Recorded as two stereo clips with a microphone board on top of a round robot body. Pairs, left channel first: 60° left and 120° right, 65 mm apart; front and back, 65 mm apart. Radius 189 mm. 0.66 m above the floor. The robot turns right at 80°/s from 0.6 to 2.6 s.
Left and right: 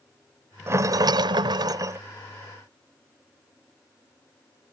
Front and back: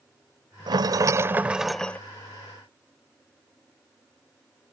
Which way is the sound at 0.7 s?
175° right.